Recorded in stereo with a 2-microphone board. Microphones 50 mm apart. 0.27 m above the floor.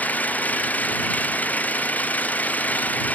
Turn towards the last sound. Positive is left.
turn(degrees=30)  # may be behind; listen again after turning